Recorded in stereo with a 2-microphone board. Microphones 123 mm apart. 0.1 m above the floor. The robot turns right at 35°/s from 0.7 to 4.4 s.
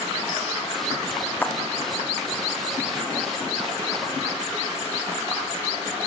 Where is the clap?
15° left (ahead or behind), 3.5 m; by 1.6 s 20° left (ahead or behind), 3.5 m.